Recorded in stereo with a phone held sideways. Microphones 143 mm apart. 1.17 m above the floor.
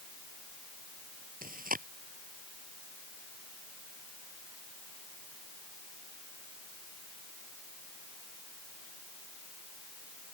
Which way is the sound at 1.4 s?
80° right.